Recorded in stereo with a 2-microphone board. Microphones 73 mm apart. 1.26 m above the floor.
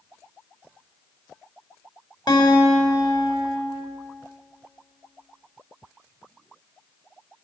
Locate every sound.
2.3 s a guitar: 75° left (ahead or behind), 2.5 m